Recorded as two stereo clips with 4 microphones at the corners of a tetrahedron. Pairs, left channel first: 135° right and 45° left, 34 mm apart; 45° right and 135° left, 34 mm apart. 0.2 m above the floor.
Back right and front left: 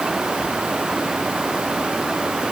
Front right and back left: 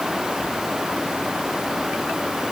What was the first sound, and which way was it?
Only background noise.